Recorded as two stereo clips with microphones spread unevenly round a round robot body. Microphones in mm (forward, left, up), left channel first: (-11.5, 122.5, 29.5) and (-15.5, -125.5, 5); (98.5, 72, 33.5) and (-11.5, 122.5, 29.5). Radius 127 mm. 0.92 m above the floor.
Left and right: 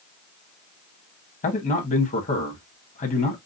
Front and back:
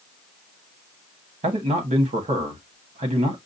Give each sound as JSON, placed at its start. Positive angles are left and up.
{"t": 1.4, "sound": "a man speaking", "azimuth_deg": 145, "distance_m": 1.2}